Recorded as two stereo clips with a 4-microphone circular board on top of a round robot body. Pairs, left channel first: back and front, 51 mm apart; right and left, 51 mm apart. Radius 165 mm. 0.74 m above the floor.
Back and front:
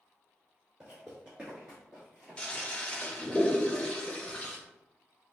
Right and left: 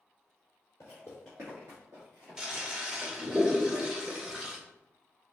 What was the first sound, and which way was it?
Footsteps, 85° right.